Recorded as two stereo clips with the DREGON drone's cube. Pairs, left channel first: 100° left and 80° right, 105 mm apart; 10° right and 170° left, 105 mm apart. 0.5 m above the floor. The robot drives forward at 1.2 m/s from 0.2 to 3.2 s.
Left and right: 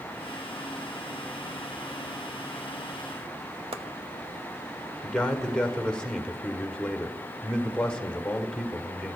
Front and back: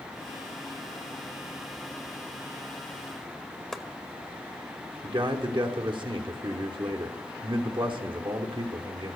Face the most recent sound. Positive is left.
turn(degrees=180)